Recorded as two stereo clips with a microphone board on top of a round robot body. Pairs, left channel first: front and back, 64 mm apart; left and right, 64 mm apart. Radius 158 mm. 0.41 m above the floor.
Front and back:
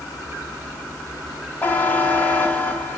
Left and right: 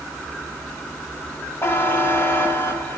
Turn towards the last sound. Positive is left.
turn(degrees=50)